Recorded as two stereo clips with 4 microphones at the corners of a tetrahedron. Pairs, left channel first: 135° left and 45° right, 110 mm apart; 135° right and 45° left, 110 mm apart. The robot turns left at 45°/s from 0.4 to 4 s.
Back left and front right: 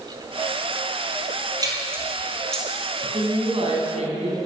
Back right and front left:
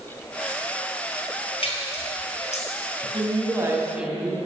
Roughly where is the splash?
Right.